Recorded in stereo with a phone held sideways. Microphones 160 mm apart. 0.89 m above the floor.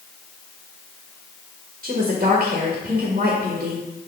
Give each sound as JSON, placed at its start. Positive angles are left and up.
{"t": 1.8, "sound": "a woman speaking", "side_deg": -50, "distance_m": 1.3}